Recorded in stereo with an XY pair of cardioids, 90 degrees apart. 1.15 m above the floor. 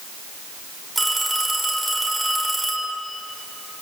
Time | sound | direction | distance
0.9 | a phone ringing | 15° right | 7 m